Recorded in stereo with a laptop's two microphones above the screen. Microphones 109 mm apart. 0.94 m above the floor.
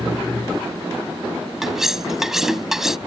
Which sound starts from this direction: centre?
Cutlery clinking, at 1.6 s.